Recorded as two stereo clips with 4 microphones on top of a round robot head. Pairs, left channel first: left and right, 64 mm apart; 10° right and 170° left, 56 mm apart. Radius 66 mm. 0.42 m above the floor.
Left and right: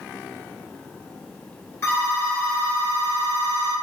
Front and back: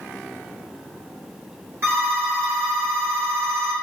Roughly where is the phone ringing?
Behind left.